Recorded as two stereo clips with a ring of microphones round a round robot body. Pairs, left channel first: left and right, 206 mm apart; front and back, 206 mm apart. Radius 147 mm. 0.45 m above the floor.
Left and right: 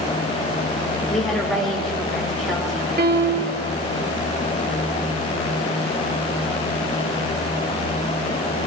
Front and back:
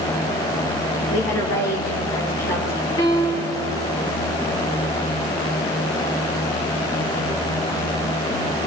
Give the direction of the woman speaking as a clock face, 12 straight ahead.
12 o'clock.